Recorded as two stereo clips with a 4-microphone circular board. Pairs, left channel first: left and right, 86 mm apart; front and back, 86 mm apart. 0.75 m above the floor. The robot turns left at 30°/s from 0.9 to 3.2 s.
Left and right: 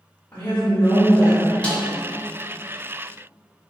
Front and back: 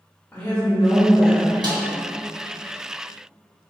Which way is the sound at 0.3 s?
50° left.